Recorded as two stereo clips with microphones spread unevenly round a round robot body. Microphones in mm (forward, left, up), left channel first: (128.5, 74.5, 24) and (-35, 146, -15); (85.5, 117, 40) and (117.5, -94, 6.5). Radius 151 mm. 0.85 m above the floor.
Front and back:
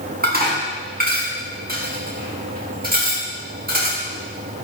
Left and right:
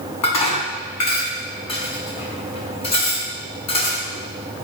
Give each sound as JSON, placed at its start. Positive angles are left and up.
{"t": 0.2, "sound": "dishes clattering", "azimuth_deg": 120, "distance_m": 6.0}